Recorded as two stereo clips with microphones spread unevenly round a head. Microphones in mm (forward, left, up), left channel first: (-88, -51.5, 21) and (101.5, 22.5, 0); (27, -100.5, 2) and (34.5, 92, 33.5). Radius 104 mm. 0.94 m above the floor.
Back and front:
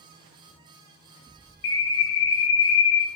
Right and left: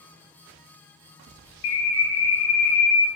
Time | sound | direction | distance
1.6 | a bird | 130° right | 0.6 m